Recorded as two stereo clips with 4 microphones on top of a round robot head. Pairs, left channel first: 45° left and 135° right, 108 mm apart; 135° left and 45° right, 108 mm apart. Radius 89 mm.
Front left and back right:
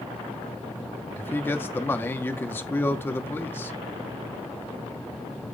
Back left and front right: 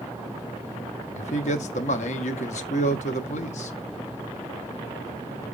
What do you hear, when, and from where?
1.1 s a man speaking: 115° left, 1.3 m